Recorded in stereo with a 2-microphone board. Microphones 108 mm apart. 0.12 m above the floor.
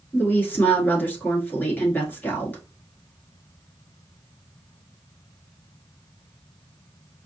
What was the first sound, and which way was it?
A woman speaking, 15° left (ahead or behind).